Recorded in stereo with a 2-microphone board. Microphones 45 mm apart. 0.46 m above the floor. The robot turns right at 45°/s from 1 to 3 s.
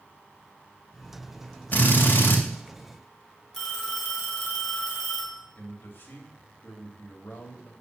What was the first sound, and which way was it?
A drill, 45° left.